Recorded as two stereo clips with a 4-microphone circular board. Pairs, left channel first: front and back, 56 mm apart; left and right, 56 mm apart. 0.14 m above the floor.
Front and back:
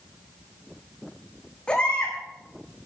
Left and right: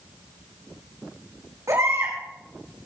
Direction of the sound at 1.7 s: 70° right.